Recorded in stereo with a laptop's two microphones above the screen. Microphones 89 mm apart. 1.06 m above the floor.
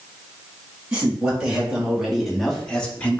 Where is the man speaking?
10° right (ahead or behind), 2.5 m; by 3.2 s 20° left (ahead or behind), 1.0 m.